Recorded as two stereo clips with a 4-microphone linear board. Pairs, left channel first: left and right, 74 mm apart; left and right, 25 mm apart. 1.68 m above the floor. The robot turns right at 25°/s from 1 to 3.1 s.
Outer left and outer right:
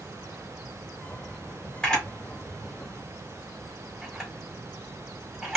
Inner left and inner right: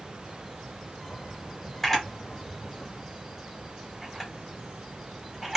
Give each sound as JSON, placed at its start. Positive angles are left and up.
{"t": 1.8, "sound": "a camera shutter", "side_deg": 10, "distance_m": 1.7}